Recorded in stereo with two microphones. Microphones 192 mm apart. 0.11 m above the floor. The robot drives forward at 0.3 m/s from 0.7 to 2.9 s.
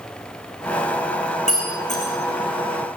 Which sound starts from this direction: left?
Breaking glass, at 1.5 s.